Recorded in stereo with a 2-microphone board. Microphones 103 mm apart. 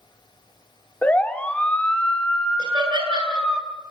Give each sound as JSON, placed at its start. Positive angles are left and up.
{"t": 1.0, "sound": "a siren", "side_deg": 15, "distance_m": 2.5}
{"t": 2.6, "sound": "laughter", "side_deg": -50, "distance_m": 8.5}